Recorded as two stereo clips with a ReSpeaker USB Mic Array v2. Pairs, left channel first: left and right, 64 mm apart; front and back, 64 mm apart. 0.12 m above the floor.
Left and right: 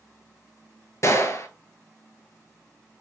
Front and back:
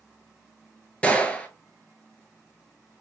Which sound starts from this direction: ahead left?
A gunshot, at 1.0 s.